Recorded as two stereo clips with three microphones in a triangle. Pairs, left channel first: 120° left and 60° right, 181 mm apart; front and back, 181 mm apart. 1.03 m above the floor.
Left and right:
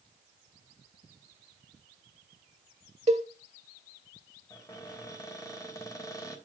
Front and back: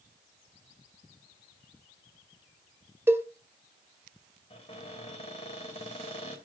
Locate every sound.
3.1 s a cowbell: 105° right, 1.3 m
4.5 s a cupboard door: 50° left, 2.5 m